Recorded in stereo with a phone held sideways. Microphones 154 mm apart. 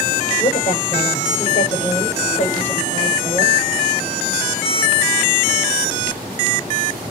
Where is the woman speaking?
50° left (ahead or behind), 7 m.